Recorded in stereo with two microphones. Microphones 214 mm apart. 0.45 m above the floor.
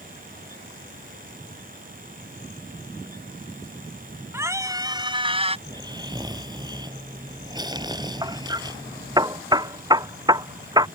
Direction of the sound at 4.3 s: 10° right (ahead or behind).